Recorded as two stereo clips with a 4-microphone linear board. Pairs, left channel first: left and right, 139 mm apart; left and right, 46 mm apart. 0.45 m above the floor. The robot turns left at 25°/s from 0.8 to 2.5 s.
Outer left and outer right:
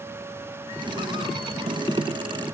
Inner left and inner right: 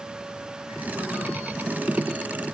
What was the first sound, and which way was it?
Only background noise.